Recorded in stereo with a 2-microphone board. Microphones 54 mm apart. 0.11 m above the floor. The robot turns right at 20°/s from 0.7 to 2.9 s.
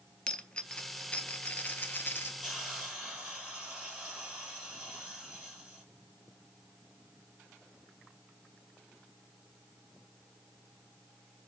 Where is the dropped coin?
25° left, 0.5 m; by 2.3 s 55° left, 0.5 m.